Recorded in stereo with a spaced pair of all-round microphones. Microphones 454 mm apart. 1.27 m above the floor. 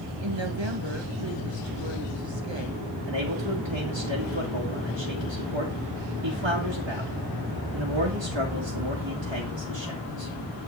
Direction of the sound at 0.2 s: 75° right (ahead or behind).